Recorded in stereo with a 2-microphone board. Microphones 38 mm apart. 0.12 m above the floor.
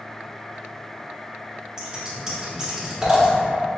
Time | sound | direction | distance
1.8 | scissors | 15° right (ahead or behind) | 1.4 m